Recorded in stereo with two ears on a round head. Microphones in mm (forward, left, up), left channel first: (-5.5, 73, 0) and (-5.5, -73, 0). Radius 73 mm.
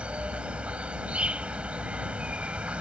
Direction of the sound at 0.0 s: 10° right (ahead or behind).